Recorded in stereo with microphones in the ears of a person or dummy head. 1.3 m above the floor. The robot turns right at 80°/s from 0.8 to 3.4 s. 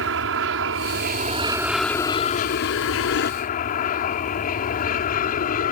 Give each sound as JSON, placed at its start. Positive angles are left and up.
{"t": 0.0, "sound": "an aircraft", "azimuth_deg": -80}